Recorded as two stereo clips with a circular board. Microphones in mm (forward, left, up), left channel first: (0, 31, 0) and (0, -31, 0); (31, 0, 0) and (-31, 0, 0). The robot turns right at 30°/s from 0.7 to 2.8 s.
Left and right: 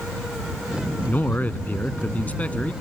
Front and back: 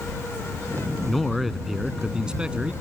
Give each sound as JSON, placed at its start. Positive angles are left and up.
{"t": 1.1, "sound": "a man speaking", "azimuth_deg": 80}